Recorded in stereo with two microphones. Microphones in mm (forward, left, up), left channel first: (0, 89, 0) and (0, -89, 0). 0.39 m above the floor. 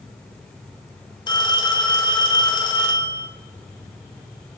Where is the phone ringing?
25° left (ahead or behind), 1.1 m.